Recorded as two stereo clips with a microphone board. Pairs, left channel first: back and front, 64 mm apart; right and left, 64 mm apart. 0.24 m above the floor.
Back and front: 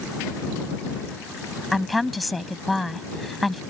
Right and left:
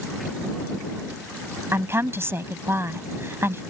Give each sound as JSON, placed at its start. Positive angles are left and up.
{"t": 1.7, "sound": "a woman speaking", "azimuth_deg": 90}